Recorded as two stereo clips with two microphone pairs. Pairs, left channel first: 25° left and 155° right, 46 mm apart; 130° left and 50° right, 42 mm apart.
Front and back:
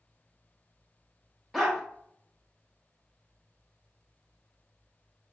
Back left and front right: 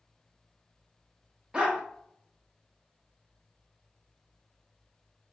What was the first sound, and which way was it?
A dog barking, 75° right.